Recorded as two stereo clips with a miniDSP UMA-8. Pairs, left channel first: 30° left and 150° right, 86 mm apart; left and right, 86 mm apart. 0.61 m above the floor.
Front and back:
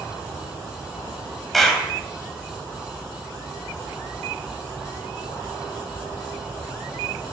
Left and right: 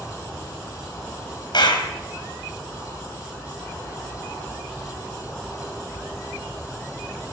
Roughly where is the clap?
Behind left.